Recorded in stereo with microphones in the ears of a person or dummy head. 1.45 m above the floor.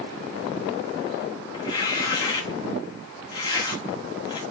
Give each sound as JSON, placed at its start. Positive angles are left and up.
{"t": 1.5, "sound": "tearing paper", "side_deg": 30, "distance_m": 0.6}